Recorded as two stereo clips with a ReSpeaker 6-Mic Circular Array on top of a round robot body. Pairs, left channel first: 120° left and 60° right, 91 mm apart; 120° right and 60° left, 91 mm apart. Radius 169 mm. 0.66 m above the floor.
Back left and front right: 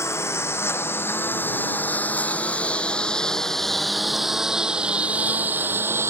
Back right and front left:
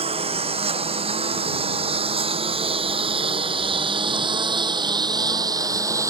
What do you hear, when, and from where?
0.0 s a lawn mower: 60° left; by 6.1 s 5° left